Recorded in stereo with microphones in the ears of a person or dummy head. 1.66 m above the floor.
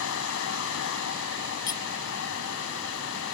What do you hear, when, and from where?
0.0 s a fan: 75° left (ahead or behind)
1.7 s cutlery clinking: 20° left (ahead or behind)